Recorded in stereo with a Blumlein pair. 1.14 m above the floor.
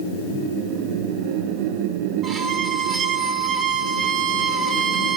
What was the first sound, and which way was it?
A violin, 20° right.